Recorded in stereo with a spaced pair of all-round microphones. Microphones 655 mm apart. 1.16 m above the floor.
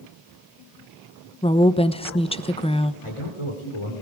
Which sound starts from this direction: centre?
A woman speaking, at 1.4 s.